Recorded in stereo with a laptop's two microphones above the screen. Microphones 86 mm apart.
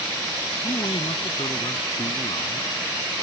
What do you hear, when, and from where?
0.6 s a man speaking: 65° left (ahead or behind)